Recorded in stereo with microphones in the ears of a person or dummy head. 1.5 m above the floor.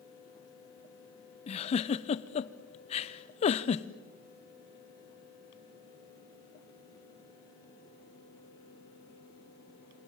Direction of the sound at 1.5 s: 30° left (ahead or behind).